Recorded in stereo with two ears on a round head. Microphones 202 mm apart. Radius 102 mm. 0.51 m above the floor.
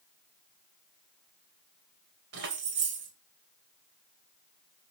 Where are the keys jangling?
55° right (ahead or behind), 1.6 m.